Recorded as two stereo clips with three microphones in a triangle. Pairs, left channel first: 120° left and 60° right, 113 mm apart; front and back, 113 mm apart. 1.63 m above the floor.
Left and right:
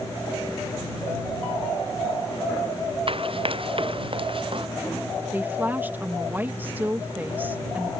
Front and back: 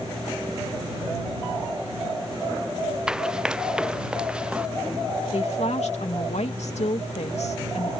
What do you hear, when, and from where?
3.1 s running footsteps: 95° right; by 4.7 s 100° right
5.3 s a woman speaking: 15° left